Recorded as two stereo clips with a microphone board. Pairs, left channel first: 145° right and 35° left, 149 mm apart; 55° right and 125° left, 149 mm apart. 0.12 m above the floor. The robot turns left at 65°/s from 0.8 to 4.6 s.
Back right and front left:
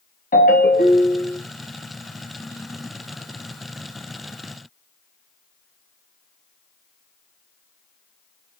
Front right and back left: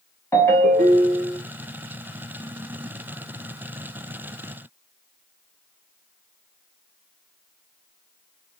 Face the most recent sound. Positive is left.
turn(degrees=-15)